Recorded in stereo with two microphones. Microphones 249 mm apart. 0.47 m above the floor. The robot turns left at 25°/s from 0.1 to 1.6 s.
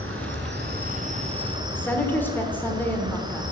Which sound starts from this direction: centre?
A woman speaking, at 1.7 s.